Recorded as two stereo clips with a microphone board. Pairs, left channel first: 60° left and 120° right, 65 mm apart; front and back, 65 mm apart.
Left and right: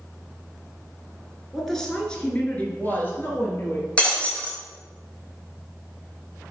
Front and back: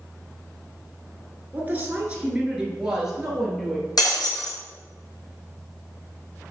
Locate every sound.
1.5 s a woman speaking: 145° left, 1.4 m; by 3.9 s 90° left, 1.9 m
4.0 s breaking glass: 15° right, 1.7 m